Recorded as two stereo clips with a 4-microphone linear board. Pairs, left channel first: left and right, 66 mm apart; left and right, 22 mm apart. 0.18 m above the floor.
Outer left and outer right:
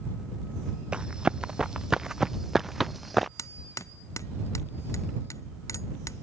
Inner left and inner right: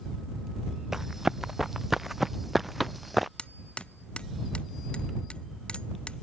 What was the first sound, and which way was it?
Running footsteps, 15° right (ahead or behind).